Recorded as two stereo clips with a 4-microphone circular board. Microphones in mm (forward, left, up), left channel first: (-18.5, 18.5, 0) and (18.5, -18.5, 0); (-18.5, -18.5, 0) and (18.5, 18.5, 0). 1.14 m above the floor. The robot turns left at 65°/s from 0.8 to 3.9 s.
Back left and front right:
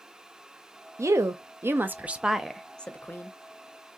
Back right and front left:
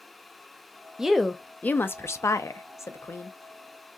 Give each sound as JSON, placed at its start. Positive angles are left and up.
{"t": 1.0, "sound": "a woman speaking", "azimuth_deg": -35, "distance_m": 0.5}